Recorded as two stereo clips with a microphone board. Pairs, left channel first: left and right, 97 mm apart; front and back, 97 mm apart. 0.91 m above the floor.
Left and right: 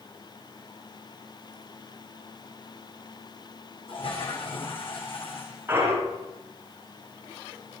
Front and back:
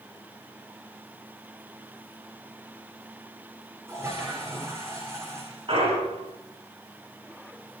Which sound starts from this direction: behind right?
A clunk, at 5.7 s.